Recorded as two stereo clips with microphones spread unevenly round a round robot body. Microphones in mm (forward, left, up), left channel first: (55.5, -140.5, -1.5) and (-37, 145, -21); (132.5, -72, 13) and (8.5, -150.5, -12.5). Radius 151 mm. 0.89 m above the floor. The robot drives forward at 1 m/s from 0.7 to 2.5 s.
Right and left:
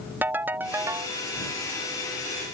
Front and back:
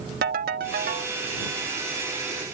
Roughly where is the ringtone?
Behind.